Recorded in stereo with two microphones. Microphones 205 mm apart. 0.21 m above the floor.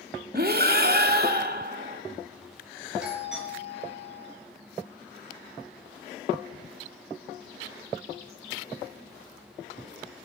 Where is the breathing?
45° right (ahead or behind), 0.9 m.